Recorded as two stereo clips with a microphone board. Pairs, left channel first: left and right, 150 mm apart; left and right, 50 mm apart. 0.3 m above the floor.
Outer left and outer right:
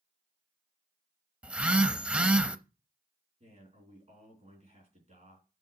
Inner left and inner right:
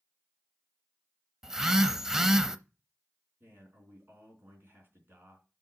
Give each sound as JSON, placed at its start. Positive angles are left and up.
{"t": 1.4, "sound": "a phone buzzing", "side_deg": -10, "distance_m": 0.6}
{"t": 3.4, "sound": "a man speaking", "side_deg": -50, "distance_m": 4.0}